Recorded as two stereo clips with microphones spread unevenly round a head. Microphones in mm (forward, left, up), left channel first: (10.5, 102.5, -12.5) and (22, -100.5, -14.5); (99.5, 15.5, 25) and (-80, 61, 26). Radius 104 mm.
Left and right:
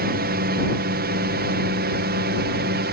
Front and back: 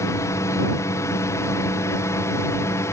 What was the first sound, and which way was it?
A drone, 85° right.